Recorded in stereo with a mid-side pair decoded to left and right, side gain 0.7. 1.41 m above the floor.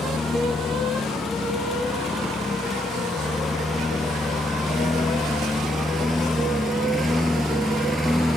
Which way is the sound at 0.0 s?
25° left.